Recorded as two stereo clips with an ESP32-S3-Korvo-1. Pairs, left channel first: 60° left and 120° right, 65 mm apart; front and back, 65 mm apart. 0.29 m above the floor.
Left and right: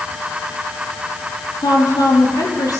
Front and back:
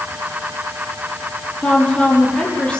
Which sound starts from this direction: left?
A woman speaking, at 1.6 s.